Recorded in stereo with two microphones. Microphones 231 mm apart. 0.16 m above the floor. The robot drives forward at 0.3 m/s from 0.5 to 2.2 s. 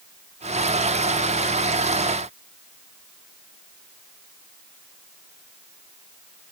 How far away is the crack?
No crack in this recording.